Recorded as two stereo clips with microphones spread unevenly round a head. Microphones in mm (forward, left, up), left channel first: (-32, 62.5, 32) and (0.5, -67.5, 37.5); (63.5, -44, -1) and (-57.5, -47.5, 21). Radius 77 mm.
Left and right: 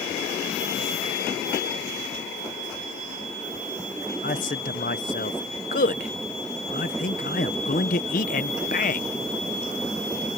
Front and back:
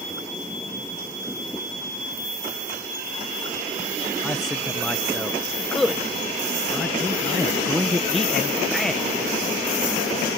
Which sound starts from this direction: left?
A man speaking, at 4.2 s.